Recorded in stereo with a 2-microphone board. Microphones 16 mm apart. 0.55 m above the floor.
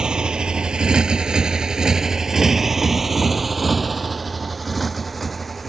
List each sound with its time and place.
0.0 s a motorcycle: 70° right (ahead or behind); by 5.7 s 5° left (ahead or behind)